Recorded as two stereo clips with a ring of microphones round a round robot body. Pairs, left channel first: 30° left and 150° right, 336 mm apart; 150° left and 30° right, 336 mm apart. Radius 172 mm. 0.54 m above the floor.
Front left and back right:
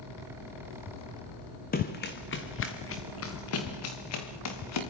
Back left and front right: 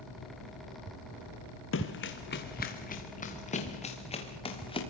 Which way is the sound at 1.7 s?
95° left.